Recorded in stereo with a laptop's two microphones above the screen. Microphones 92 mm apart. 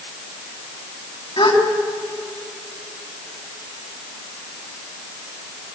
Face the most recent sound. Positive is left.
turn(degrees=80)